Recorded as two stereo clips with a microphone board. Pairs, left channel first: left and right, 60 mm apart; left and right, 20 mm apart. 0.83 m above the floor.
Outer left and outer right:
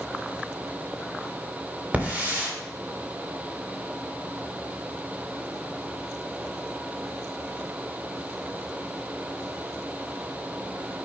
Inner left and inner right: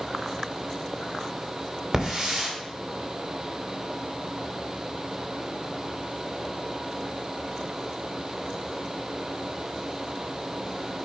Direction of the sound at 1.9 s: 25° right (ahead or behind).